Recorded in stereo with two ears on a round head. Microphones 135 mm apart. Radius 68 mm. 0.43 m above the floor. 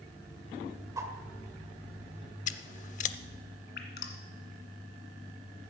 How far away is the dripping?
About 1.8 m.